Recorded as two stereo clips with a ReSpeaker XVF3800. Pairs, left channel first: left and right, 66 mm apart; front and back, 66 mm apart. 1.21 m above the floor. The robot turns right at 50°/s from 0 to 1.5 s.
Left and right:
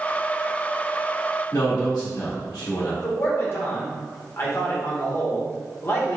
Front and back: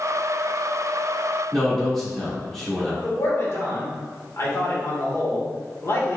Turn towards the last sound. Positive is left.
turn(degrees=40)